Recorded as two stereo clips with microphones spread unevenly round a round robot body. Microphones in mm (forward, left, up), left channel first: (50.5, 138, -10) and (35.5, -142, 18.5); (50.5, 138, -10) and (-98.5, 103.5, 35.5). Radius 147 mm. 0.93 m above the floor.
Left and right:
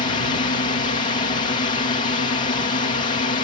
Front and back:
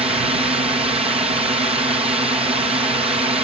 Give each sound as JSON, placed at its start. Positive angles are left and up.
{"t": 0.0, "sound": "a drone", "azimuth_deg": 145}